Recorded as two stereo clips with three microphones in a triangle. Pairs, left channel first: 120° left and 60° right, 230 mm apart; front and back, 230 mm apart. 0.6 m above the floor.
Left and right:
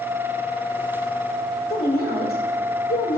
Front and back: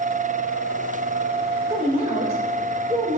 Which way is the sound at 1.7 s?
120° left.